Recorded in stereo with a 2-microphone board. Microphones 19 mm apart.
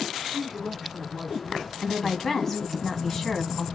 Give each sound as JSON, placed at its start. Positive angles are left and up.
{"t": 0.3, "sound": "a man speaking", "side_deg": 5, "distance_m": 1.7}
{"t": 1.8, "sound": "a woman speaking", "side_deg": 20, "distance_m": 1.8}